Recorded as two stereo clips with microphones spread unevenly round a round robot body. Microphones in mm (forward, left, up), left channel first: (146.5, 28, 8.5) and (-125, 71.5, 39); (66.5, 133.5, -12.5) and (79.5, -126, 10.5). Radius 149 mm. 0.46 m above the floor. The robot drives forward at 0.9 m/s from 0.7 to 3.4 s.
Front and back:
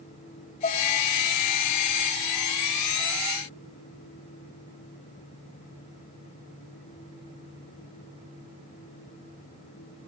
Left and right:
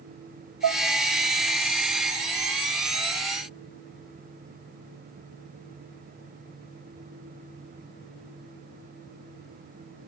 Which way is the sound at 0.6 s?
60° right.